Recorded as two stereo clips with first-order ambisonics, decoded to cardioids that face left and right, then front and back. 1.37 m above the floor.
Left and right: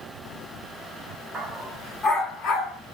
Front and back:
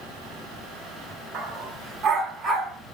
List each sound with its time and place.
1.3 s a dog barking: 165° right, 1.4 m; by 2.8 s 115° left, 1.7 m